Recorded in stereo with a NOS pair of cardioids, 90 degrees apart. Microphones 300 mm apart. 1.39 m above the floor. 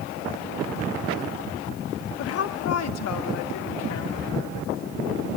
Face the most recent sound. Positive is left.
turn(degrees=65)